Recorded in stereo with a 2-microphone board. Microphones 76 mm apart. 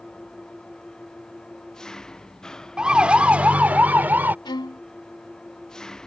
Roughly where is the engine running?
Centre.